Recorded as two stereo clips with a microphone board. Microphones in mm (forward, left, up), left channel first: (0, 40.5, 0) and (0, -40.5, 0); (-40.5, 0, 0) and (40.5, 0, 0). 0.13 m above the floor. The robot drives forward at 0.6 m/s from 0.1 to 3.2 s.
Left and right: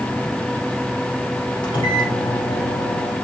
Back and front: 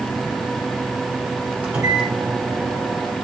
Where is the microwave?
70° left, 3.5 m; by 3.1 s 90° left, 3 m.